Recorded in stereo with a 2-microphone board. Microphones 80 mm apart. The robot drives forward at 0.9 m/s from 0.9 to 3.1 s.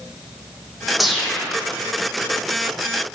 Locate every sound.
1.0 s a whoosh: centre (ahead or behind), 2.5 m